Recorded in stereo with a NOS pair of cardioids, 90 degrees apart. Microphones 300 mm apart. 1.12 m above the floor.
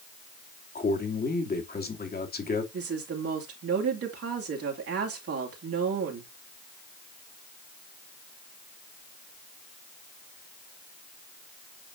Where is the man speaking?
30° left, 2.5 m.